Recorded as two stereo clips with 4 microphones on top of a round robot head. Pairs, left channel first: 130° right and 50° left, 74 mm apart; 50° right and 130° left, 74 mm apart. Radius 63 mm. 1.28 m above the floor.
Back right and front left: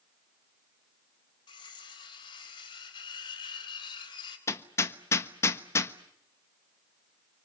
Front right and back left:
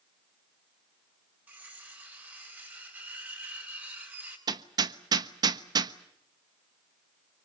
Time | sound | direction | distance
1.5 | cutlery clinking | 160° right | 4.5 m
4.5 | hammering | 170° left | 1.2 m